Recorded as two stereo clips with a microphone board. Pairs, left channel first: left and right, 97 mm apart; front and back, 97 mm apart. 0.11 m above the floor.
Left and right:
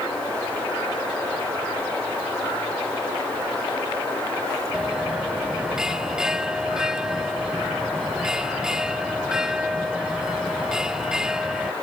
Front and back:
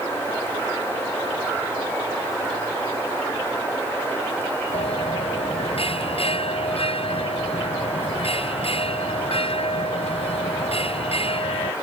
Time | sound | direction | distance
4.7 | a bell | 5° right | ?